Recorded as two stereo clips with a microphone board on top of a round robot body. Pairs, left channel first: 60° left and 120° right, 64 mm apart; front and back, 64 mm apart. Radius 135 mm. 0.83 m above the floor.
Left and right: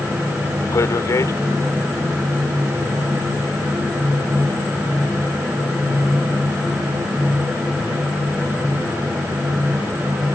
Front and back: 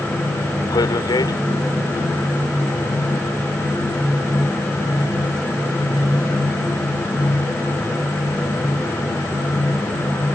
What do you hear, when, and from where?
0.7 s a man speaking: 15° left